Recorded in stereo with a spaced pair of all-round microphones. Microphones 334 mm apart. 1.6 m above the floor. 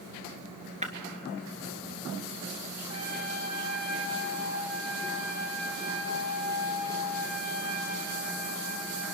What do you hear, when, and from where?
0.8 s breaking glass: 20° right (ahead or behind), 2.0 m
2.9 s a trumpet: 55° right (ahead or behind), 3.5 m